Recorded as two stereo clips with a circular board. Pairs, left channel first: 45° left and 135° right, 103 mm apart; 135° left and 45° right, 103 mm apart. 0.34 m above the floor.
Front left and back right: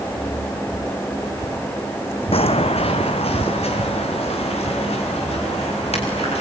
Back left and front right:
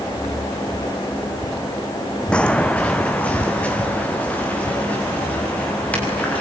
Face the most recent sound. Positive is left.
turn(degrees=60)